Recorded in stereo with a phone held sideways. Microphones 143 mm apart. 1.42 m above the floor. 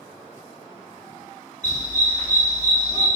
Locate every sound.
1.6 s a dog barking: 30° right (ahead or behind), 1.4 m